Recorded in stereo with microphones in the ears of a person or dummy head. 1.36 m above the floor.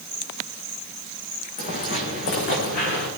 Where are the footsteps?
40° left (ahead or behind), 4 m; by 3.1 s 60° left (ahead or behind), 4.5 m.